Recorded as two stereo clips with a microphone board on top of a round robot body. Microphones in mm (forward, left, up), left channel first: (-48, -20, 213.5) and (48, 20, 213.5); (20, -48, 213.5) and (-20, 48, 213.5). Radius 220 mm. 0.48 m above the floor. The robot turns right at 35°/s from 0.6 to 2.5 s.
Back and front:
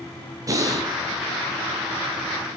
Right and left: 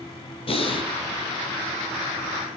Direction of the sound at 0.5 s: 35° right.